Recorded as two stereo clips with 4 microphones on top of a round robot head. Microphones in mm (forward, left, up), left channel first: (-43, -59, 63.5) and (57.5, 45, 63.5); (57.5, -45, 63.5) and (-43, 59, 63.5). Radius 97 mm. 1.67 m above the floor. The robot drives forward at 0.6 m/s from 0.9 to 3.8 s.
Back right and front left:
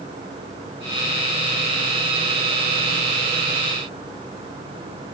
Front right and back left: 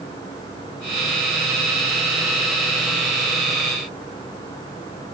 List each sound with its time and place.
Only background noise.